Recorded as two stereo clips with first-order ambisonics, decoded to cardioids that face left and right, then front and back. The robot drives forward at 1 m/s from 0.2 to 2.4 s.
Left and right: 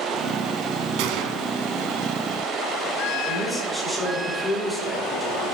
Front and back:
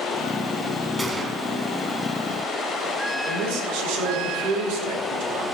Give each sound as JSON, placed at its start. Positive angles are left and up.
{"t": 1.0, "sound": "a gunshot", "azimuth_deg": -95, "distance_m": 1.4}
{"t": 3.2, "sound": "a man speaking", "azimuth_deg": 180, "distance_m": 4.0}